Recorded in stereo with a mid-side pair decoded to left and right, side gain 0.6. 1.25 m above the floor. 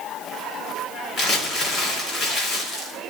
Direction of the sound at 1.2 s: 55° left.